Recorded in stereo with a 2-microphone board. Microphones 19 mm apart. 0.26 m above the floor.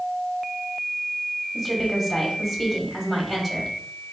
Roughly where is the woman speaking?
Centre.